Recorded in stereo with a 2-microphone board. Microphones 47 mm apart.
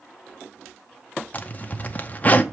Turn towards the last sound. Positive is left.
turn(degrees=30)  # may be behind; listen again after turning